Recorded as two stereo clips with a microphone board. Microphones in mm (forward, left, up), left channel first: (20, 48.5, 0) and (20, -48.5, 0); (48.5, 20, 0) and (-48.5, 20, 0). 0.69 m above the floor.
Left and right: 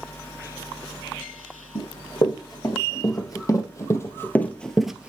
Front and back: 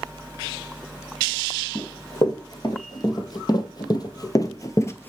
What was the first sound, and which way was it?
Running footsteps, 45° left.